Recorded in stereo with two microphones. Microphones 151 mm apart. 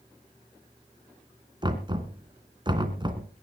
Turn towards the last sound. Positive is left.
turn(degrees=-30)  # may be behind; listen again after turning